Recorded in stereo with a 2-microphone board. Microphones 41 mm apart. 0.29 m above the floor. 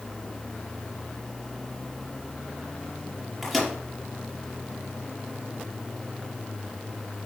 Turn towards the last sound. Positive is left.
turn(degrees=0)  # may be behind; listen again after turning